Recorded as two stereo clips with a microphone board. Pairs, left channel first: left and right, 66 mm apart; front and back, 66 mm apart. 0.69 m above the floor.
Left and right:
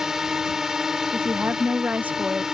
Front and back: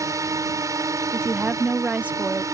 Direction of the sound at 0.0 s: 170° right.